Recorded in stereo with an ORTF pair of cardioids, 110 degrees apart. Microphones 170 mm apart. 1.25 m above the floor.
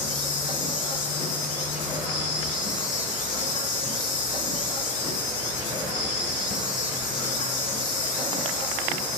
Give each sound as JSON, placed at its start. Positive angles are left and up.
{"t": 0.0, "sound": "an insect", "azimuth_deg": 55, "distance_m": 5.0}